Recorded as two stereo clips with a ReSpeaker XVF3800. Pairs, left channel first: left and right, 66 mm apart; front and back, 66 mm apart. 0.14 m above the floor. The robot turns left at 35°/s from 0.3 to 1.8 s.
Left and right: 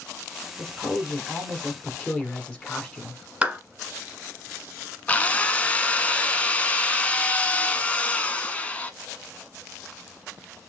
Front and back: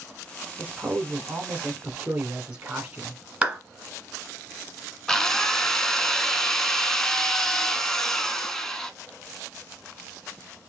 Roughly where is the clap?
Behind right.